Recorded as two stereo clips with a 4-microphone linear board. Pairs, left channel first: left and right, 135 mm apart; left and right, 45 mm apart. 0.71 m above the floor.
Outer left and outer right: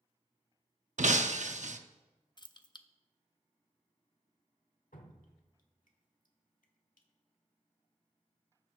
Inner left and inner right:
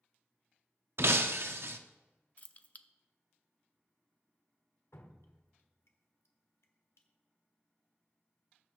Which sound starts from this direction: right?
Breaking glass, at 1.0 s.